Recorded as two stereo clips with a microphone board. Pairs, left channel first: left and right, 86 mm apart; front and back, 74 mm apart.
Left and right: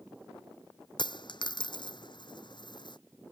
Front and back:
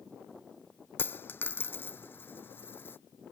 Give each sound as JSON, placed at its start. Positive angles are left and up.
{"t": 1.0, "sound": "a dropped coin", "azimuth_deg": 60}